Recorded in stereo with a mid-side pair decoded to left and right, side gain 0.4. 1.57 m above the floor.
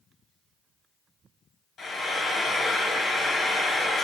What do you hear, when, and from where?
1.8 s frying: 70° left, 1.0 m